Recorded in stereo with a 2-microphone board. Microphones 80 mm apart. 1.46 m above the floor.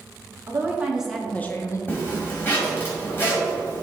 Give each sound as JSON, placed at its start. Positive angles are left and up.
{"t": 0.5, "sound": "a woman speaking", "side_deg": -30, "distance_m": 1.4}
{"t": 1.9, "sound": "a zipper", "side_deg": 25, "distance_m": 2.0}